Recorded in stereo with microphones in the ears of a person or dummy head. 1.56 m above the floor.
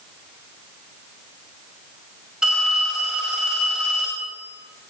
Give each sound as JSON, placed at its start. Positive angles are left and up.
{"t": 2.4, "sound": "a phone ringing", "side_deg": 0, "distance_m": 5.5}